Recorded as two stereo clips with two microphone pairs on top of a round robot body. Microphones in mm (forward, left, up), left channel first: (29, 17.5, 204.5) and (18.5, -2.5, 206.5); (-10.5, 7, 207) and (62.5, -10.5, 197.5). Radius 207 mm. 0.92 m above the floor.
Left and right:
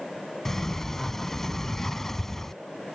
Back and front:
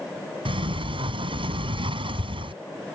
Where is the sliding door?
20° right.